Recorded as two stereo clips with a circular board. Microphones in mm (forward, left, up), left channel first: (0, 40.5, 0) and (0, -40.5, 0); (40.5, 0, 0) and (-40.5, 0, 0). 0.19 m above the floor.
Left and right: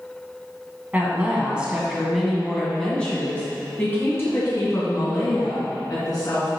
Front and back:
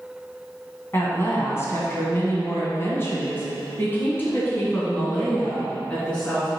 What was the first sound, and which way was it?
A woman speaking, 35° right.